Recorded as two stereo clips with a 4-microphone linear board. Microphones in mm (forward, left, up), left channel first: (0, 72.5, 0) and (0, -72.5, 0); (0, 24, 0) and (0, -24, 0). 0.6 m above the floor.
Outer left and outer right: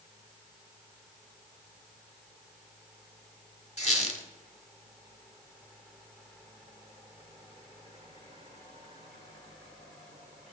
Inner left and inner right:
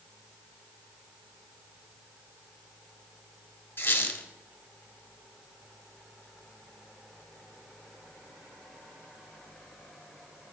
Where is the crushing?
I don't hear crushing.